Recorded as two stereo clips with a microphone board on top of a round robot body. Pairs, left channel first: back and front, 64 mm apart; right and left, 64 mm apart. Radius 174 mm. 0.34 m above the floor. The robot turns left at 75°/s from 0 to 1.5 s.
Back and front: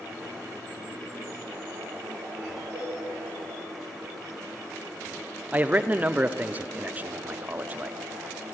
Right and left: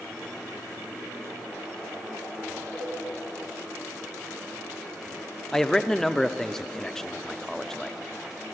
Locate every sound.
2.7 s a cowbell: 5° right, 7 m
5.5 s a man speaking: 15° right, 1.0 m